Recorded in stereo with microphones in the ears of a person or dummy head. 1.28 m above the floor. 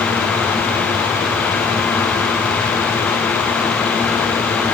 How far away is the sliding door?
No sliding door in this recording.